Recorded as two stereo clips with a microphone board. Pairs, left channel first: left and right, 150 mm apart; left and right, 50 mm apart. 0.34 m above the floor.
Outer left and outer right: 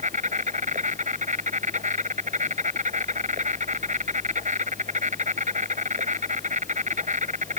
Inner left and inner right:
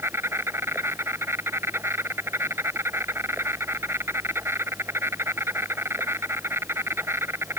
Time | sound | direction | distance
0.0 | an insect | 55° right (ahead or behind) | ?